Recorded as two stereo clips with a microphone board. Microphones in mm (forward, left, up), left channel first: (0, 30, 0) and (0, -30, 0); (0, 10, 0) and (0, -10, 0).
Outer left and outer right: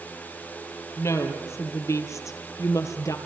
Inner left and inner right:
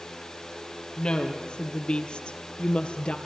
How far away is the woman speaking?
About 4 m.